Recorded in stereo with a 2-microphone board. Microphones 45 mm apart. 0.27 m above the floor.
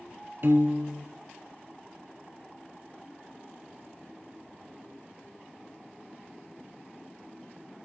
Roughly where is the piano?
Right.